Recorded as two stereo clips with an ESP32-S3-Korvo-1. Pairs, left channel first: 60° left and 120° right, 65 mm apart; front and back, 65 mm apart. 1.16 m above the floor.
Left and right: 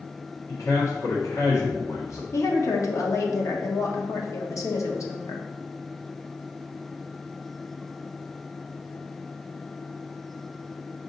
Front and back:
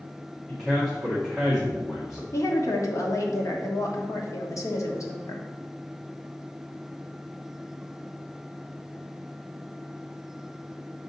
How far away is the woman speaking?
About 1.2 m.